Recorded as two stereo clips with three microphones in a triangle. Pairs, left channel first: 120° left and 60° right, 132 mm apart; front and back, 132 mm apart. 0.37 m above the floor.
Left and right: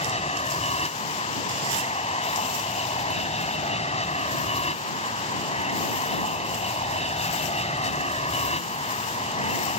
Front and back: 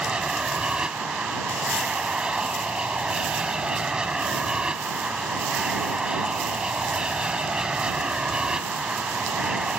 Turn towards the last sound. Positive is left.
turn(degrees=95)